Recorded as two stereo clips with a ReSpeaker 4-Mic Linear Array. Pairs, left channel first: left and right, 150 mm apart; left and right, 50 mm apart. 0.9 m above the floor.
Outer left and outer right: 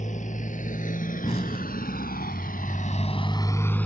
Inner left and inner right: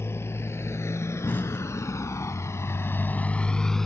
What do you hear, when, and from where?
0.0 s a motorcycle: 55° left (ahead or behind); by 3.9 s 10° left (ahead or behind)
1.2 s an explosion: 40° left (ahead or behind)